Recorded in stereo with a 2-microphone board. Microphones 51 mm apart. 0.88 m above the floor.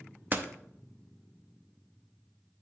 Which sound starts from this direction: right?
A door slam, at 0.3 s.